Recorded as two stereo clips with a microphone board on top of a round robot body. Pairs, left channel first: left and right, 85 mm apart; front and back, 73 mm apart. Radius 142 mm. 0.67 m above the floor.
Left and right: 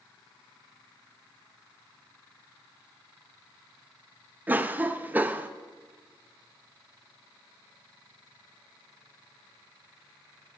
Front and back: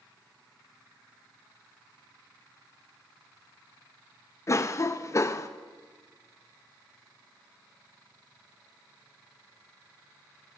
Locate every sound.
4.5 s a cough: 30° right, 0.6 m